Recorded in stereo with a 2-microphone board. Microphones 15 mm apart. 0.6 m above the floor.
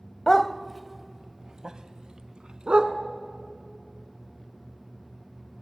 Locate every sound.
0.3 s a dog barking: 30° left (ahead or behind), 0.7 m; by 2.9 s 80° right, 1.7 m